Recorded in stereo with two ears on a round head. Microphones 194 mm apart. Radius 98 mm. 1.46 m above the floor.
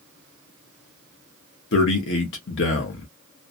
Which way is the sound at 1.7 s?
55° left (ahead or behind).